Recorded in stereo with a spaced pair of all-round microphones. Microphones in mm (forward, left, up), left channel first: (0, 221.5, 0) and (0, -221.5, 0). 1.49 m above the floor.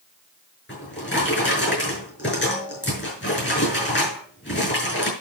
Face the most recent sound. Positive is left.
turn(degrees=25)  # may be behind; listen again after turning